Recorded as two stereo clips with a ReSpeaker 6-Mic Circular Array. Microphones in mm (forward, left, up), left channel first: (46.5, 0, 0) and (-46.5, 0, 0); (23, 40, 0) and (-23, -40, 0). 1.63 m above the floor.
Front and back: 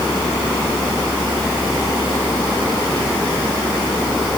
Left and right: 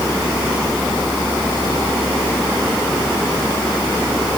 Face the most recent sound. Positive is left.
No sound to turn to.